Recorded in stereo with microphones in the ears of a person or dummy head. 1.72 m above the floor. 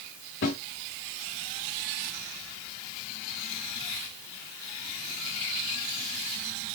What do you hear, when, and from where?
0.4 s a snare drum: 55° left (ahead or behind), 3 m